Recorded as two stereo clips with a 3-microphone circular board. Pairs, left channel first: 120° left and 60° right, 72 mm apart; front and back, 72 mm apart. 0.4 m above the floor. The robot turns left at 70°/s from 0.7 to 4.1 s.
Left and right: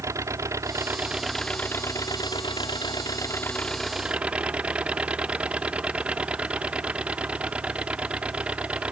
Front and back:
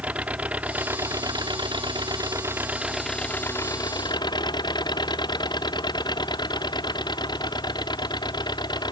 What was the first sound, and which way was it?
An engine running, 110° right.